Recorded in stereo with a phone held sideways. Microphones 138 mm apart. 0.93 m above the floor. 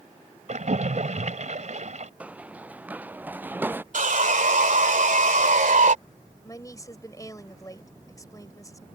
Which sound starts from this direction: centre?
Running footsteps, at 2.2 s.